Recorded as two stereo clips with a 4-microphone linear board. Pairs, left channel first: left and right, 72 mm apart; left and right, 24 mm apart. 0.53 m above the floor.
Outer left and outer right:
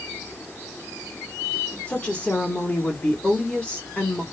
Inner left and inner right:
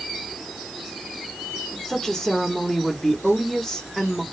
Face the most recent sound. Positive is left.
turn(degrees=15)  # may be behind; listen again after turning